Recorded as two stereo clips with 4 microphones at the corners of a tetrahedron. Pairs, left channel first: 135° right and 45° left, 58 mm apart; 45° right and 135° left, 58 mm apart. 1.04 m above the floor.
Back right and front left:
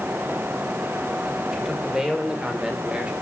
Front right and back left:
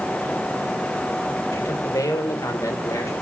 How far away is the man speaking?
About 5 m.